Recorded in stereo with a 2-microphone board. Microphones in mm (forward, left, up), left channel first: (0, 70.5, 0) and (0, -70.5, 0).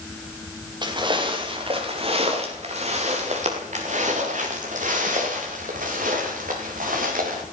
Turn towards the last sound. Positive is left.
turn(degrees=-80)